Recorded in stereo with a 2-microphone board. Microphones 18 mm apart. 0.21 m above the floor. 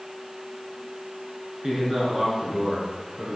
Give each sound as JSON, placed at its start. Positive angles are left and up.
{"t": 1.6, "sound": "a man speaking", "side_deg": -50, "distance_m": 2.0}